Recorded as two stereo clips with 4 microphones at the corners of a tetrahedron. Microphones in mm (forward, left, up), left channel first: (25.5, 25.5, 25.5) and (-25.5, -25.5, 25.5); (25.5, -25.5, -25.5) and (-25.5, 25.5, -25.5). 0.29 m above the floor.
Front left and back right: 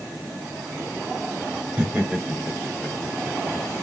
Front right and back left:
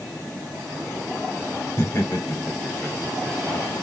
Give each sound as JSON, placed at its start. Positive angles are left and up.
{"t": 1.8, "sound": "laughter", "azimuth_deg": -70, "distance_m": 1.7}